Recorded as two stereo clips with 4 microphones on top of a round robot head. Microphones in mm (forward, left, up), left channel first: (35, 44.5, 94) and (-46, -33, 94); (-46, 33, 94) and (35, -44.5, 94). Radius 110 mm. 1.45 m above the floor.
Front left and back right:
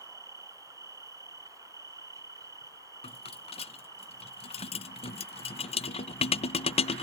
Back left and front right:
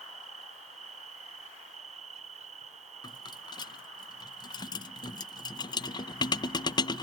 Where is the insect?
70° right.